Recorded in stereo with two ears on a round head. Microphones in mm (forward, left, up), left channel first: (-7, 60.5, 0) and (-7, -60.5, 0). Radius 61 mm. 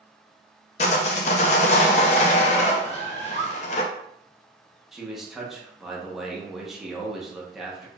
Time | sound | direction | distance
0.8 | sawing | 50° left (ahead or behind) | 0.5 m
2.8 | a bird | 55° right (ahead or behind) | 1.5 m
4.9 | a man speaking | centre (ahead or behind) | 0.9 m